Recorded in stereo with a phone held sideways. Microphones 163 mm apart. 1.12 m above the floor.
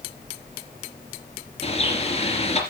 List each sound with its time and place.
1.6 s a bird: 40° left (ahead or behind), 3 m